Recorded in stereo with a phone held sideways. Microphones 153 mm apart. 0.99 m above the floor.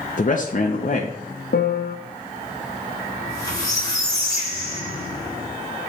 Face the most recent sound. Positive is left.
turn(degrees=25)  # may be behind; listen again after turning